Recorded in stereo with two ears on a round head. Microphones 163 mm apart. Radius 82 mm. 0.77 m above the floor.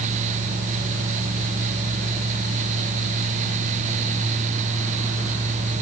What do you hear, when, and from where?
Only background noise.